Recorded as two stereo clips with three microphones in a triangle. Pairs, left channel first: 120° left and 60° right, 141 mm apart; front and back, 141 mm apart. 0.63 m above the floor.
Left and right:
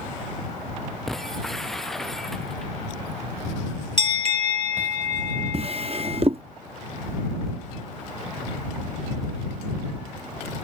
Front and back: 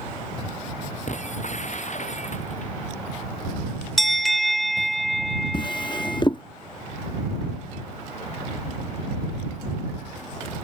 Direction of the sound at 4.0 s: 90° right.